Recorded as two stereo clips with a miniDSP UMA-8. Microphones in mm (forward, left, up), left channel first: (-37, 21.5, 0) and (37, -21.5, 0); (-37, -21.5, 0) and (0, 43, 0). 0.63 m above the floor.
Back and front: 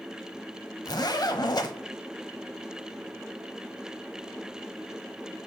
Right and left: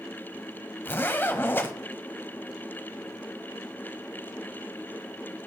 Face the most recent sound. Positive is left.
turn(degrees=180)